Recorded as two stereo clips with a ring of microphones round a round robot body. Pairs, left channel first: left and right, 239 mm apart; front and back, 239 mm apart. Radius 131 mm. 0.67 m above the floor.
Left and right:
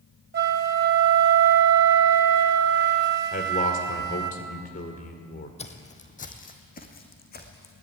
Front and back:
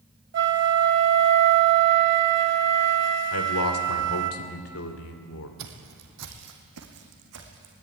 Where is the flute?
140° right, 1.5 m.